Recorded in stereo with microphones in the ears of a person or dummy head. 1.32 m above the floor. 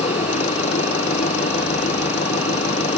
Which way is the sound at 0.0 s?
35° left (ahead or behind).